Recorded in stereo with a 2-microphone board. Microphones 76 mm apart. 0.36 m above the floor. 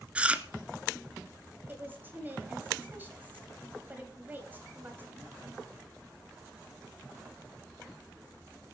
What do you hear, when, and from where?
0.1 s chewing: 20° right (ahead or behind), 0.8 m
1.7 s a woman speaking: 25° right (ahead or behind), 2 m